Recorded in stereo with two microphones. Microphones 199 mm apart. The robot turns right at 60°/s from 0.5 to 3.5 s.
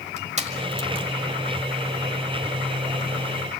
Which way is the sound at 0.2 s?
35° right (ahead or behind).